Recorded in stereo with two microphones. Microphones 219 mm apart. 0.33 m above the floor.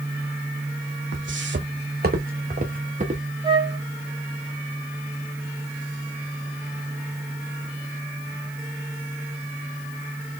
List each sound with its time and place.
1.1 s footsteps: 65° right (ahead or behind), 0.7 m; by 3.2 s 30° right (ahead or behind), 1.7 m
3.4 s a flute: 25° right (ahead or behind), 1.3 m